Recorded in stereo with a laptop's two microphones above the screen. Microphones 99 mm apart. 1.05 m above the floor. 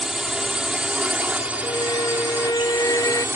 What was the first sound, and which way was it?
A drone, 5° right (ahead or behind).